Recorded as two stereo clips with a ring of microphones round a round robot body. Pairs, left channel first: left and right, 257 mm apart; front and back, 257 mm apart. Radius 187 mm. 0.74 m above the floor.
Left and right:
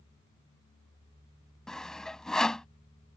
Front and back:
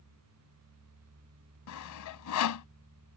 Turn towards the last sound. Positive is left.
turn(degrees=0)